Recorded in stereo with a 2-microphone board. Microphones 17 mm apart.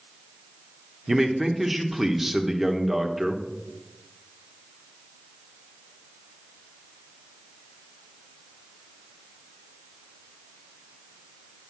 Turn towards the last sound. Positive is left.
turn(degrees=-5)  # may be behind; listen again after turning